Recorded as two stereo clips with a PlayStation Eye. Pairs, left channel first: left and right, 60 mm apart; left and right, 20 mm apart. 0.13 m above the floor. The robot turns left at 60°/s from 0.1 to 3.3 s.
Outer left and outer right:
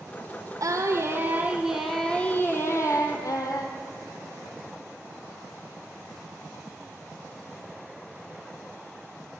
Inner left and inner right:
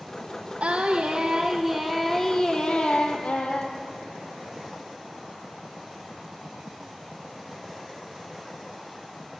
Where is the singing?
105° right, 1.5 m; by 3.8 s 95° left, 1.5 m.